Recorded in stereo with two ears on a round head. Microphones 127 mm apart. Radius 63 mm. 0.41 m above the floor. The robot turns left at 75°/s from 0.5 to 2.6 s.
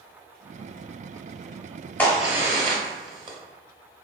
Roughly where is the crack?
Centre.